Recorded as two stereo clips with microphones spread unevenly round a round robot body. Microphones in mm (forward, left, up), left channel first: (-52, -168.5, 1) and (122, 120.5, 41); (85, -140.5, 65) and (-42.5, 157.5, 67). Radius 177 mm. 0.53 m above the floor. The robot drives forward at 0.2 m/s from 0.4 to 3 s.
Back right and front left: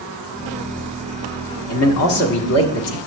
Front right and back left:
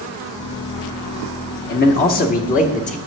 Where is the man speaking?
115° right, 1.0 m; by 3.0 s 130° right, 1.2 m.